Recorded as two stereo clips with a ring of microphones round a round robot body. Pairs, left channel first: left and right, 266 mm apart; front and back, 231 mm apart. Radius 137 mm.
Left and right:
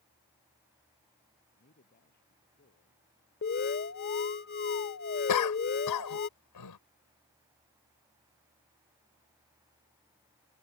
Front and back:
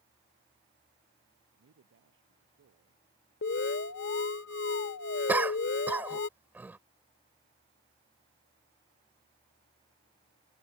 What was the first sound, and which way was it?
A man speaking, 150° left.